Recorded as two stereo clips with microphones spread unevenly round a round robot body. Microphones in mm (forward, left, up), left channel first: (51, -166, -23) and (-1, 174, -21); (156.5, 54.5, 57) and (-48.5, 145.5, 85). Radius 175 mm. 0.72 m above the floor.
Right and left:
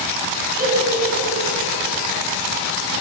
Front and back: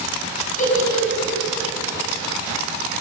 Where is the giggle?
30° left, 5 m.